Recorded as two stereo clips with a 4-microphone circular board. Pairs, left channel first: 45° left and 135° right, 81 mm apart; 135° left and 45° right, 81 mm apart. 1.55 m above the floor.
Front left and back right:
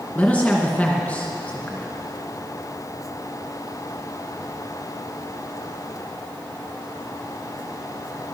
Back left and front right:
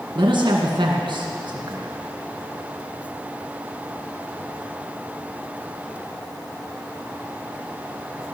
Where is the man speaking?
30° right, 2 m.